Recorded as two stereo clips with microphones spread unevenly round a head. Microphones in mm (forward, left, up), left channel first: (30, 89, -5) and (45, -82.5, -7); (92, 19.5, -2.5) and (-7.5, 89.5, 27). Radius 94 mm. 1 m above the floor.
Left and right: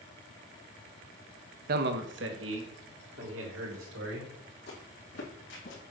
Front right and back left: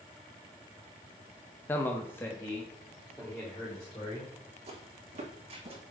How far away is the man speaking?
About 0.6 m.